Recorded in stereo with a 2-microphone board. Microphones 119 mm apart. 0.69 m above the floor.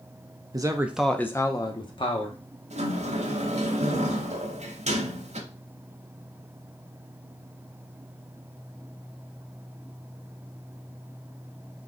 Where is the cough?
No cough in this recording.